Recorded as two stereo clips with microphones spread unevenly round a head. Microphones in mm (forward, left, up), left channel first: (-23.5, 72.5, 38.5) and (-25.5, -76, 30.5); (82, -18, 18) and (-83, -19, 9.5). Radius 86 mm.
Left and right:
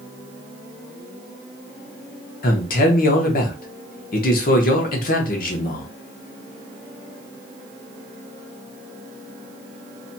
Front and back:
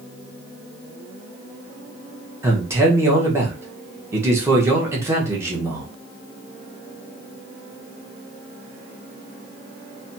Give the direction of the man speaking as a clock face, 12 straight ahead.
8 o'clock.